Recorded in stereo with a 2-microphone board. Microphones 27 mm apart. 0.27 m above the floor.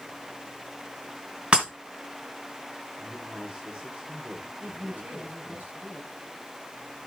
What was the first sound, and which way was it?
Breaking glass, 45° right (ahead or behind).